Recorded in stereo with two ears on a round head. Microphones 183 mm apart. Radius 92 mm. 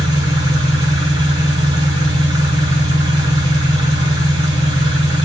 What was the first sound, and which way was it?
An engine running, 20° right (ahead or behind).